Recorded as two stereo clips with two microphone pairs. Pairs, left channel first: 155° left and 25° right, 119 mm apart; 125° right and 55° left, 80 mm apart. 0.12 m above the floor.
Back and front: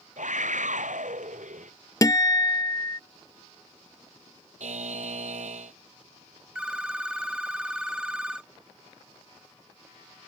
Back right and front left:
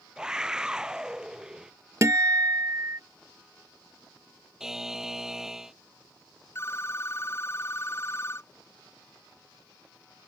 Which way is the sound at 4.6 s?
30° right.